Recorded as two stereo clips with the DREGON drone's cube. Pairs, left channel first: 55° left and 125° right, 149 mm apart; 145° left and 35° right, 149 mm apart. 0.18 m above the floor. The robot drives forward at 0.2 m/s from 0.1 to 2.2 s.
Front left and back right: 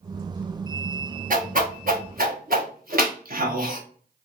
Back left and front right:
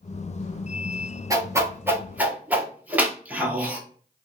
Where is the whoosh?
100° right, 0.8 m; by 3.8 s 115° right, 0.9 m.